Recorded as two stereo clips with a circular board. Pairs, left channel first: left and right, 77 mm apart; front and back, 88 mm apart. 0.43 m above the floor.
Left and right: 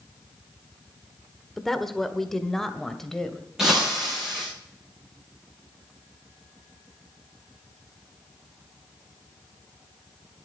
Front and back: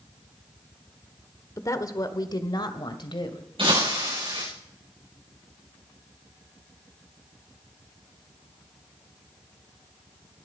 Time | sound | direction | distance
1.6 | a woman speaking | 5° left | 1.1 m
3.6 | breaking glass | 175° right | 9 m